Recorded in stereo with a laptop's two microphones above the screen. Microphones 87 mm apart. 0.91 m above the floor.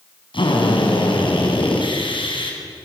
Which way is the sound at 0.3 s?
75° left (ahead or behind).